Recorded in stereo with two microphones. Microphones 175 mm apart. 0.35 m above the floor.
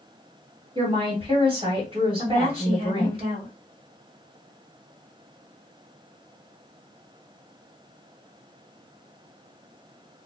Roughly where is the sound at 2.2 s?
Right.